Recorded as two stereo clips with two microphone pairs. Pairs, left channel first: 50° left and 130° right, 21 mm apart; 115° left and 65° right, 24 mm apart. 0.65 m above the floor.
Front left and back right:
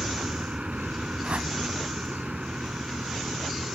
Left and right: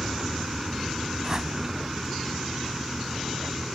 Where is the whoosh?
125° right.